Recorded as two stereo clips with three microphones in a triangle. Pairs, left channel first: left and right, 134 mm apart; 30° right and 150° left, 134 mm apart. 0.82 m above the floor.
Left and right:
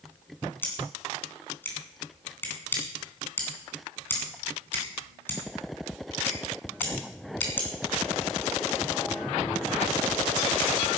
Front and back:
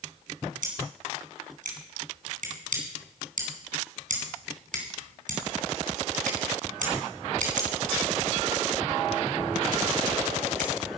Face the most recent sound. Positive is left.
turn(degrees=165)